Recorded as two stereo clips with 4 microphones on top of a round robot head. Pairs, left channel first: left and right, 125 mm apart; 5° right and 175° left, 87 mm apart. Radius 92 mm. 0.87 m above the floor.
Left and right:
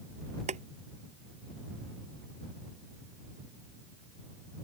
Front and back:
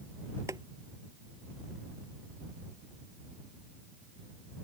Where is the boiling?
120° right.